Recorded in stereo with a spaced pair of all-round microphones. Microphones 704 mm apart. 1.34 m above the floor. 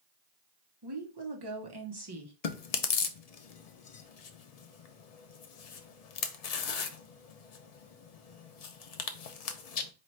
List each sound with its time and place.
0.8 s a woman speaking: 35° right (ahead or behind), 0.9 m
2.4 s chewing: 60° left (ahead or behind), 0.6 m